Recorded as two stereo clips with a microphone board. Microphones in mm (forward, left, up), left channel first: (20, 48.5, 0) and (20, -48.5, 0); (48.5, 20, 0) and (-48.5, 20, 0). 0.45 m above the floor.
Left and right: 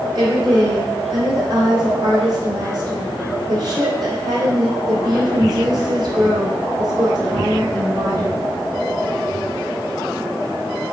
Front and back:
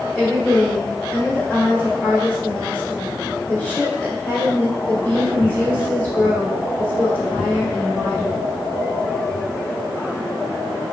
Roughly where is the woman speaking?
Ahead right.